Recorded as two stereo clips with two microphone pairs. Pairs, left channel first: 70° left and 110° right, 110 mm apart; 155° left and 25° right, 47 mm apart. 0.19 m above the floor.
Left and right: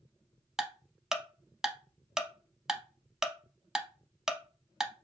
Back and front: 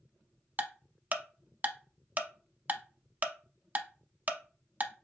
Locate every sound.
0.6 s ticking: 25° right, 0.6 m